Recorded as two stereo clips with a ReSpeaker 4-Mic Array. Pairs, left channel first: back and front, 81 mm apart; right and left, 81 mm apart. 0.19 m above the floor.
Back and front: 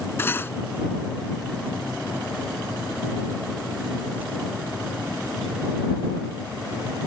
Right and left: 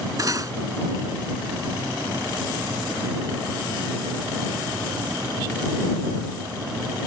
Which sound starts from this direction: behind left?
Cutlery clinking, at 0.2 s.